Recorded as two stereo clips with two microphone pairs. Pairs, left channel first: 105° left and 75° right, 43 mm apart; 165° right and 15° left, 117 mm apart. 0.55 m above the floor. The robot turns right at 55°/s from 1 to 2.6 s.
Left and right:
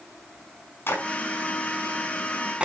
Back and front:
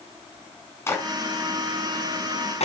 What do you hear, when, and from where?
0.9 s a clap: 130° left, 5 m; by 2.6 s 145° right, 5 m